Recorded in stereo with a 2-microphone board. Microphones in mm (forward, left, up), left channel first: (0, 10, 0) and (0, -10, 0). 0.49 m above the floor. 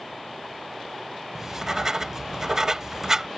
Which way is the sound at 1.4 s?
35° right (ahead or behind).